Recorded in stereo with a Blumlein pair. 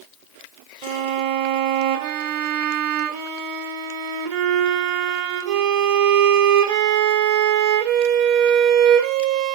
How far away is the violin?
About 2 m.